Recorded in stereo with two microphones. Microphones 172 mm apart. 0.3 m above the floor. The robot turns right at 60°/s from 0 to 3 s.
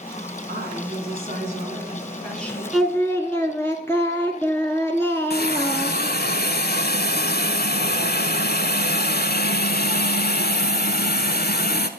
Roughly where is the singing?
Centre.